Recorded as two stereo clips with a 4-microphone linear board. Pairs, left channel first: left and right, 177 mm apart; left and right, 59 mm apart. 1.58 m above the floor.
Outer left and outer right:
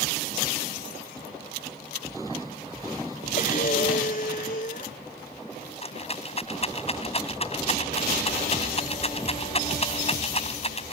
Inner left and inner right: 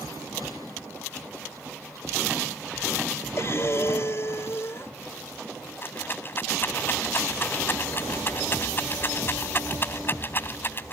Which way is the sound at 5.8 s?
35° left (ahead or behind).